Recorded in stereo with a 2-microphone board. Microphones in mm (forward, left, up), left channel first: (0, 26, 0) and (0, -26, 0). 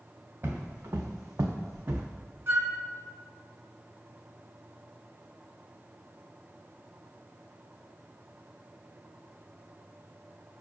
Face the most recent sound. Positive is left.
turn(degrees=-50)  # may be behind; listen again after turning